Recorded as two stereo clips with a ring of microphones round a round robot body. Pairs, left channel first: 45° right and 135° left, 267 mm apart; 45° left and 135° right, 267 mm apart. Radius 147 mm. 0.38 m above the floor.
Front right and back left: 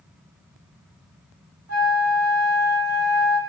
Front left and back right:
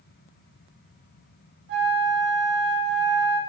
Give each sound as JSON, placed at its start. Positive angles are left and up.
{"t": 1.7, "sound": "a flute", "azimuth_deg": 175, "distance_m": 1.1}